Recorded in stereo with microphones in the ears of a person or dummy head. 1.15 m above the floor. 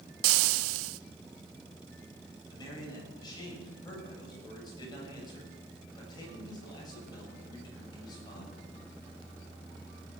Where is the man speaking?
20° left (ahead or behind), 7 m.